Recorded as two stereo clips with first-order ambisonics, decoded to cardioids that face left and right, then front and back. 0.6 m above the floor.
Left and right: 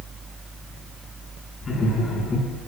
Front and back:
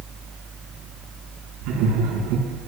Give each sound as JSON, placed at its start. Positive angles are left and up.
{"t": 1.6, "sound": "laughter", "azimuth_deg": 160, "distance_m": 5.5}